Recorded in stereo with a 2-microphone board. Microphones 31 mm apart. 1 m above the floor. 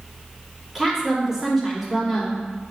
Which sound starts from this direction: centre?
A woman speaking, at 0.8 s.